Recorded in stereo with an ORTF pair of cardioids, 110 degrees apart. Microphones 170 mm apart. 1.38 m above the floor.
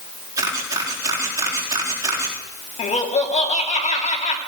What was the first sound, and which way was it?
A camera shutter, 20° right.